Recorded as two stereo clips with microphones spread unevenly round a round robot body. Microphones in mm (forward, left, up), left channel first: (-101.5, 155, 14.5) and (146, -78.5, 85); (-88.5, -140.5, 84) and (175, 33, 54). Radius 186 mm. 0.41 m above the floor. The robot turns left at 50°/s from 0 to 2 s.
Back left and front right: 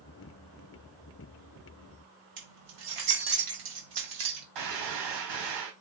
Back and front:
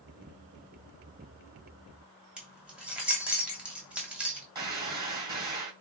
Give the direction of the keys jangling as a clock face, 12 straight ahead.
2 o'clock.